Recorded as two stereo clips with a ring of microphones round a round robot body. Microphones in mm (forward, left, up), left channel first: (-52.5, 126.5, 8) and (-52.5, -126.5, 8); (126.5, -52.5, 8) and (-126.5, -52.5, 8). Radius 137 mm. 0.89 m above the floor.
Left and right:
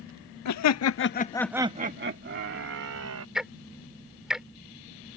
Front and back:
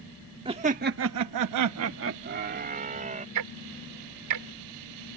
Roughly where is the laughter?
Left.